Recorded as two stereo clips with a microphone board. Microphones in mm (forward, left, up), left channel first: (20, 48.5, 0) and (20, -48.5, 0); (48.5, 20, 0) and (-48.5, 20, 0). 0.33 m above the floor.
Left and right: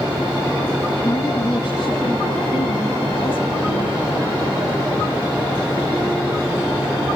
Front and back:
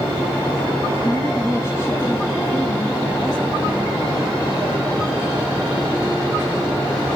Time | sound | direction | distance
1.0 | a woman speaking | 50° left | 2.5 m